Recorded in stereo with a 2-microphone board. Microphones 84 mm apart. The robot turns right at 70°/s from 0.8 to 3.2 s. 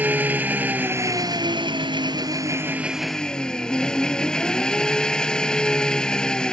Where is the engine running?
160° right; by 6.5 s 10° left.